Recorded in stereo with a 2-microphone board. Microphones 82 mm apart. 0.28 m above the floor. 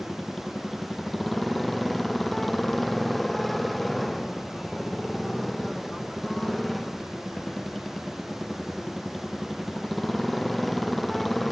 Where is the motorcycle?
Centre (ahead or behind).